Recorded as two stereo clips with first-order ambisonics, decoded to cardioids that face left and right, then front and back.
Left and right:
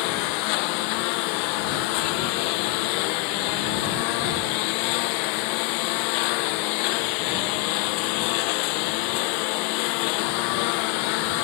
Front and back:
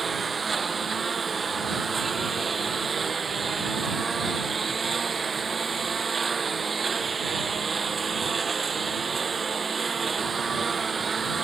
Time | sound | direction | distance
0.0 | a lawn mower | 105° left | ?